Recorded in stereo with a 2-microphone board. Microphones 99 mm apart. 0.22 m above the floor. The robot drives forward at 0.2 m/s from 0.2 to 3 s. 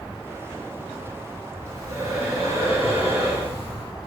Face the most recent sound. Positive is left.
turn(degrees=-25)  # may be behind; listen again after turning